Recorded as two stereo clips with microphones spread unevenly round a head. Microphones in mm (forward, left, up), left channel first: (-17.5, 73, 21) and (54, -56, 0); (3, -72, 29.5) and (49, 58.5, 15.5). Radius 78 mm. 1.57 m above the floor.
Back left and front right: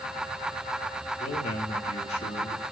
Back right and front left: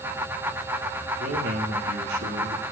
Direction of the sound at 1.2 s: 80° left.